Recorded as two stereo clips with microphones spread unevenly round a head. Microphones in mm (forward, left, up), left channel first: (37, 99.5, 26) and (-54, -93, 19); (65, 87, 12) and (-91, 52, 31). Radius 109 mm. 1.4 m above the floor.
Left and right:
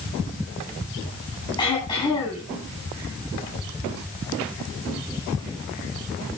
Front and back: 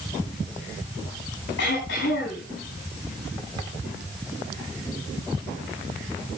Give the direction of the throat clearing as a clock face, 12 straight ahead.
12 o'clock.